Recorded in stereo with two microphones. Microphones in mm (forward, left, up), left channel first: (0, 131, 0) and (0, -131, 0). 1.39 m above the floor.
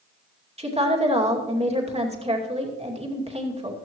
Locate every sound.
0.6 s a woman speaking: 25° right (ahead or behind), 2.5 m